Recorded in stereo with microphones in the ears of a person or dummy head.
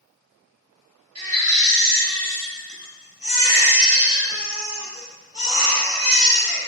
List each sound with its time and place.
1.1 s a baby crying: 30° right (ahead or behind), 1.6 m